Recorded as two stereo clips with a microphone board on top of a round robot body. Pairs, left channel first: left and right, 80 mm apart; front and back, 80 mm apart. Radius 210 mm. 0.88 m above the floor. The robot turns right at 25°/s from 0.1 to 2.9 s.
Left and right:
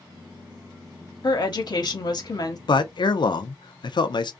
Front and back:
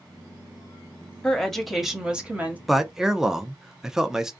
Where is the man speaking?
90° left, 0.6 m; by 4.3 s 95° left, 0.6 m.